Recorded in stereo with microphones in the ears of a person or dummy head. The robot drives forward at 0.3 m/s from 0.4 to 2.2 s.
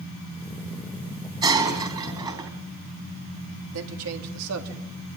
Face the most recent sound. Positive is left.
turn(degrees=-85)